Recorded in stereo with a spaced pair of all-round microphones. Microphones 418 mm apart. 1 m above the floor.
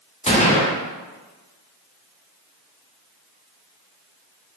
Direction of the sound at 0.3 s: 15° left (ahead or behind).